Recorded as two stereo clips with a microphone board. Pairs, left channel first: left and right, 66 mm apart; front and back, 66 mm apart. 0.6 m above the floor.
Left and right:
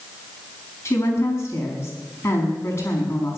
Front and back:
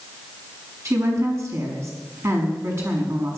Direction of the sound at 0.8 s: 135° left.